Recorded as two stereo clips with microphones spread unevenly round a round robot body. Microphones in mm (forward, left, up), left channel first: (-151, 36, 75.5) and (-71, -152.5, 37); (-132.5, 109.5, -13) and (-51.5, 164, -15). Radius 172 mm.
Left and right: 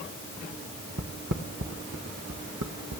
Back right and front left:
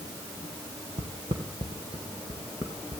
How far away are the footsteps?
About 1.9 m.